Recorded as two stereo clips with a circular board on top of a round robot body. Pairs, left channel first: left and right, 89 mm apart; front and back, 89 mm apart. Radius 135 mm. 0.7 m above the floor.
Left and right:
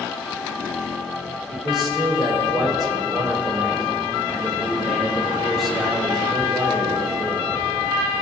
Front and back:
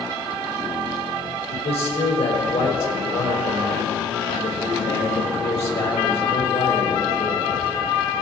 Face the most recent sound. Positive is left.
turn(degrees=0)